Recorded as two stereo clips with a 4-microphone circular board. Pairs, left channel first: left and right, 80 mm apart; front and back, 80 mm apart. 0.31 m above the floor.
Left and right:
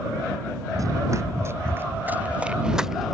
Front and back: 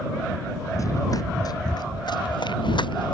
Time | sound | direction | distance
0.7 | running footsteps | 45° right | ?